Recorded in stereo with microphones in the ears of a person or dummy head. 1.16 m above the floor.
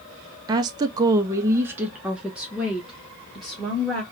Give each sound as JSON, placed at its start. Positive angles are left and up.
{"t": 0.5, "sound": "a woman speaking", "side_deg": -20, "distance_m": 0.5}